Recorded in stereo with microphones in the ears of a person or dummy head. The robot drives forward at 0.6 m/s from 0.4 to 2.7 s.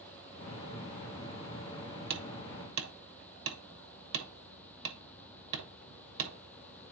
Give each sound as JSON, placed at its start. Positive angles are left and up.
{"t": 2.1, "sound": "hammering", "side_deg": -65, "distance_m": 1.1}